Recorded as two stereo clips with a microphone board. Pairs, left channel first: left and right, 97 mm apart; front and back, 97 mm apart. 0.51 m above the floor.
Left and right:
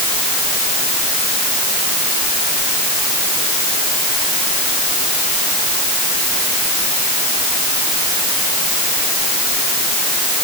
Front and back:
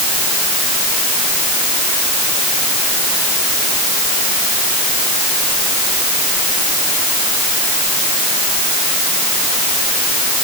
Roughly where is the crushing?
No crushing in this recording.